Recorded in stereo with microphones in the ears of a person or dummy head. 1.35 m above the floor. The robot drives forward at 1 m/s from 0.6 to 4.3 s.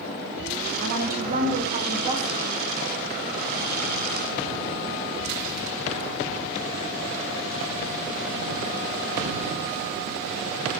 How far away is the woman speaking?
About 1.2 m.